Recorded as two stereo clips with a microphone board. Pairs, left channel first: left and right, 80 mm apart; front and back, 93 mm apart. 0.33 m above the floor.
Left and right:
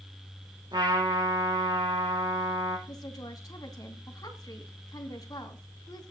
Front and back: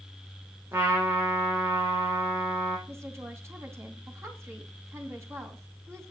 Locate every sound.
0.7 s a trumpet: 115° right, 6 m
2.9 s a woman speaking: 125° left, 2.5 m